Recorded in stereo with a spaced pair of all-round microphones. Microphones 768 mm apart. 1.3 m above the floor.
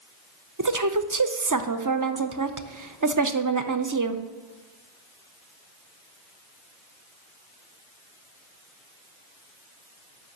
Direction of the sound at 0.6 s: 25° right (ahead or behind).